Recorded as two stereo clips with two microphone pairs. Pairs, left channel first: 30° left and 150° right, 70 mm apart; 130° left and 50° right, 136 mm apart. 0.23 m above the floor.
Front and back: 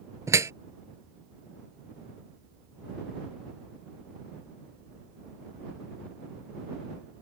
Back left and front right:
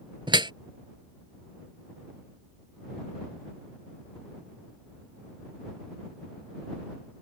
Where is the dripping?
105° right.